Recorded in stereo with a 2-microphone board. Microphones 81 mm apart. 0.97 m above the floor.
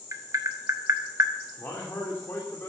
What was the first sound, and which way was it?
Tapping, 40° right (ahead or behind).